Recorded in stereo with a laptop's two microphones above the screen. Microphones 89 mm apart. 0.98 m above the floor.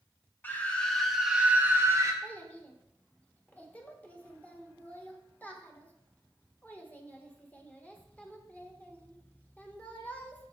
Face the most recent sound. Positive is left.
turn(degrees=15)  # may be behind; listen again after turning